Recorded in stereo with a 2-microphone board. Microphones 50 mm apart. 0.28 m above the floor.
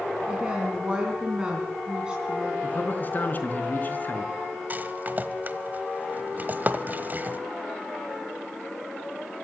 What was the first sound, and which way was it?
A woman speaking, 20° right (ahead or behind).